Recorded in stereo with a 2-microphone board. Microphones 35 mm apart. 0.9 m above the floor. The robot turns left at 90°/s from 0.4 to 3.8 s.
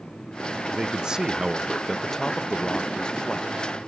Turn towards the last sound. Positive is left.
turn(degrees=0)  # may be behind; listen again after turning